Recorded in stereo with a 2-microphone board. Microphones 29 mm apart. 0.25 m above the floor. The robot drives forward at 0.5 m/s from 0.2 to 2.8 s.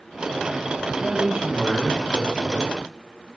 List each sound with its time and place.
0.9 s a man speaking: 50° right (ahead or behind), 2.5 m; by 2.8 s 45° right (ahead or behind), 2.5 m